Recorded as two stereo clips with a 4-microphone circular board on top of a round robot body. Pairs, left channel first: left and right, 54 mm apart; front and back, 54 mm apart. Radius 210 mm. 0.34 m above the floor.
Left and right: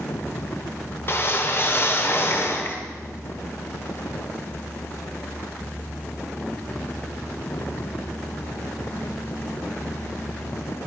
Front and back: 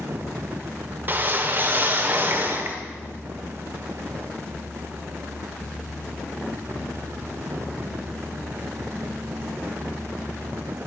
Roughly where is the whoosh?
Behind left.